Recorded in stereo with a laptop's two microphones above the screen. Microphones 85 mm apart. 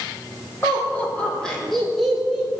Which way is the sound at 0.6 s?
30° left (ahead or behind).